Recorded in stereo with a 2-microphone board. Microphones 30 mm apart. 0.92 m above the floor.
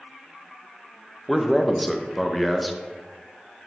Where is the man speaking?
5° right (ahead or behind), 0.6 m.